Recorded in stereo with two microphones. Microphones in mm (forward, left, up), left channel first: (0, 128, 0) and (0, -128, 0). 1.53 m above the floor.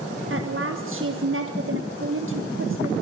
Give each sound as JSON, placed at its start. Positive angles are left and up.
{"t": 0.3, "sound": "a woman speaking", "side_deg": -55, "distance_m": 1.5}